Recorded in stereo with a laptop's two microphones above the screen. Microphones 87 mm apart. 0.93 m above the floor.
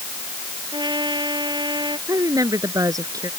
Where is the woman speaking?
45° right (ahead or behind).